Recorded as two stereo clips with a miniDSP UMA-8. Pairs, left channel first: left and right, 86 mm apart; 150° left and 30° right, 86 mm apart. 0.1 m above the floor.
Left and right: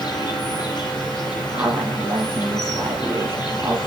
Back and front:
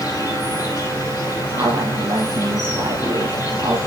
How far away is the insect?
About 4.5 m.